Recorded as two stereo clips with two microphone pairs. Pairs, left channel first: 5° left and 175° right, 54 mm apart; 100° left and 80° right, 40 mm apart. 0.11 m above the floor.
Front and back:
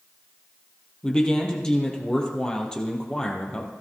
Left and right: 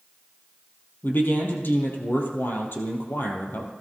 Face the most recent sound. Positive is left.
turn(degrees=80)